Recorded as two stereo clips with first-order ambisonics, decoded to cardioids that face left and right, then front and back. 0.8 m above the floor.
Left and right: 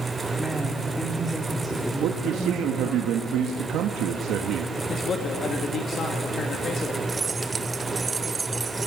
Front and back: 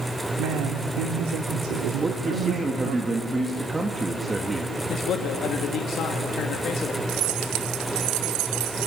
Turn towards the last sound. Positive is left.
turn(degrees=-165)